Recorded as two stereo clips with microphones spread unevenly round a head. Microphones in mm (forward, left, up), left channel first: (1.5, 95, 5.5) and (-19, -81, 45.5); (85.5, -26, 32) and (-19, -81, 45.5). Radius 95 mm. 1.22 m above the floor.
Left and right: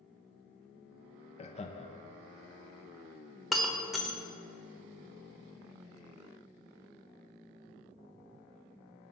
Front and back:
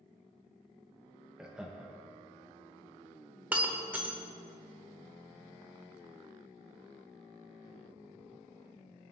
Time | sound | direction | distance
1.4 | laughter | 120° left | 0.7 m
3.5 | breaking glass | 140° right | 0.9 m